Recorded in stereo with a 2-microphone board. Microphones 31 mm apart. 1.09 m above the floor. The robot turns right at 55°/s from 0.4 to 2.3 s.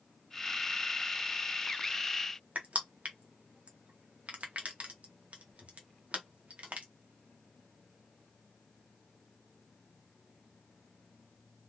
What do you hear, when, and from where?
2.5 s crushing: 55° right (ahead or behind), 0.8 m